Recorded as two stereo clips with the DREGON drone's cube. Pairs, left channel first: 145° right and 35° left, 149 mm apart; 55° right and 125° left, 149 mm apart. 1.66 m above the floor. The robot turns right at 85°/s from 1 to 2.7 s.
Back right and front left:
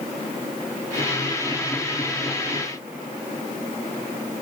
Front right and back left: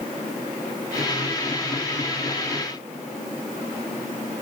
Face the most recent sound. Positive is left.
No sound to turn to.